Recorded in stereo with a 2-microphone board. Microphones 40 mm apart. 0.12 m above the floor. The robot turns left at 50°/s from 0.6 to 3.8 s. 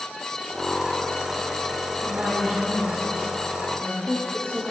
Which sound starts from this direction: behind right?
A woman speaking, at 2.0 s.